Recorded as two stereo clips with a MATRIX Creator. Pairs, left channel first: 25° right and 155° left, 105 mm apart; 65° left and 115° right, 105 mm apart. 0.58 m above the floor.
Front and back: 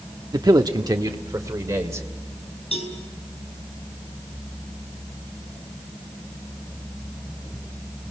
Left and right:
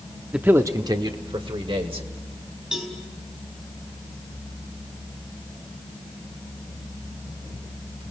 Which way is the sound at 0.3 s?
170° left.